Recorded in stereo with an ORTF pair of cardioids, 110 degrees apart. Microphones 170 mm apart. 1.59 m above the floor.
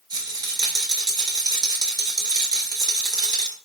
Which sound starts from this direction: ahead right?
A rattle, at 0.1 s.